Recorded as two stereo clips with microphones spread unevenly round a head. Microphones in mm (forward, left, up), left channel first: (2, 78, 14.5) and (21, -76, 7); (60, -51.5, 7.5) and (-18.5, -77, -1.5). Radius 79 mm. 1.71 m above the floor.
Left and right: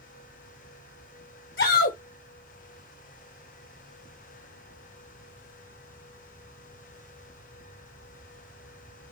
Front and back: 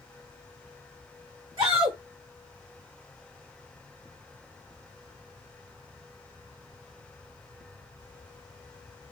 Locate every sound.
1.6 s a shout: 125° left, 1.4 m